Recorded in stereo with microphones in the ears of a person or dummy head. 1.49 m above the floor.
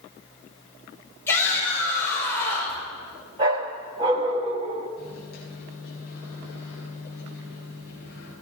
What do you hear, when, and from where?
1.3 s a shout: 15° left (ahead or behind), 5.5 m
3.4 s a dog barking: 20° right (ahead or behind), 1.0 m
5.0 s a microwave: 55° left (ahead or behind), 9 m